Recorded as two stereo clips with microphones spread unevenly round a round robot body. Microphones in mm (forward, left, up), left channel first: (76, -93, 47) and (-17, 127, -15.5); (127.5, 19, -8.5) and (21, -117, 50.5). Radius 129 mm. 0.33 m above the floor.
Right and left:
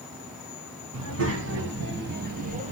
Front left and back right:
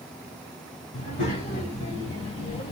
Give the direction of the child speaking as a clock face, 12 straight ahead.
9 o'clock.